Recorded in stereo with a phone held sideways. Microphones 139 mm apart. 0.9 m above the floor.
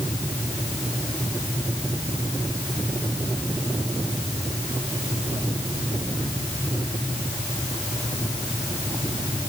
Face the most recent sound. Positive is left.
No sound to turn to.